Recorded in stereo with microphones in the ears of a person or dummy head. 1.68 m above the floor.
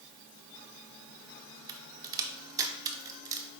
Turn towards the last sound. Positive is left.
turn(degrees=-15)  # may be behind; listen again after turning